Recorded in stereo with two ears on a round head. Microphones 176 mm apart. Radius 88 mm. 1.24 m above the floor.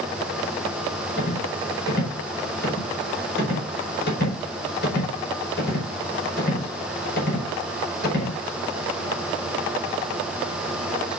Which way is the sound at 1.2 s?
55° left (ahead or behind).